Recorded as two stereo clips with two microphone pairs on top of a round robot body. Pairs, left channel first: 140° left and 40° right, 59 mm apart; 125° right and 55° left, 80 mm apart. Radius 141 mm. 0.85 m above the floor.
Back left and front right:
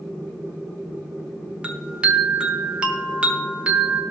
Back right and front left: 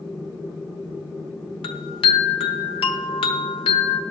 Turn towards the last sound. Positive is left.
turn(degrees=-115)